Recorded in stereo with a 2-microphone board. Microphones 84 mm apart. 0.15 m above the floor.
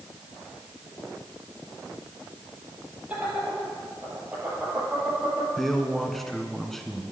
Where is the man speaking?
5° left (ahead or behind), 1.3 m.